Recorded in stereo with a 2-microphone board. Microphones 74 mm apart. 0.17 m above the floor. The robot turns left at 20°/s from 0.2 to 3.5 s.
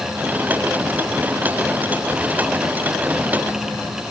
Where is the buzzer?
I don't hear a buzzer.